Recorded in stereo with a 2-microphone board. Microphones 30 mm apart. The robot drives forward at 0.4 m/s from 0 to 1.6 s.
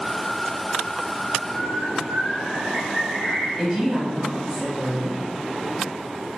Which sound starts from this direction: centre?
A woman speaking, at 3.6 s.